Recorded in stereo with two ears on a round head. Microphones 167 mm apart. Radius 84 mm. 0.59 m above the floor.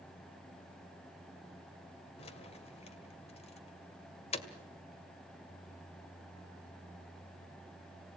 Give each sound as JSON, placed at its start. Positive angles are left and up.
{"t": 2.2, "sound": "keys jangling", "side_deg": 35, "distance_m": 1.8}